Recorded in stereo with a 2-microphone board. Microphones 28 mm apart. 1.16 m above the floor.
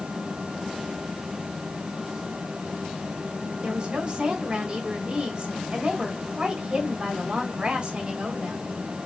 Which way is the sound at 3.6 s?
35° right (ahead or behind).